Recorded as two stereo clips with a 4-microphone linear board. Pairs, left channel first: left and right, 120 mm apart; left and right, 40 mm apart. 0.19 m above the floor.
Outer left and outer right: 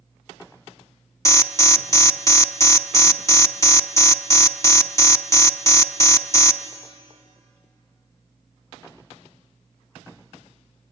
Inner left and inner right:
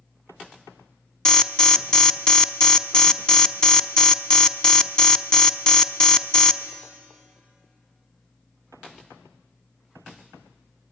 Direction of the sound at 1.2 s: 25° left (ahead or behind).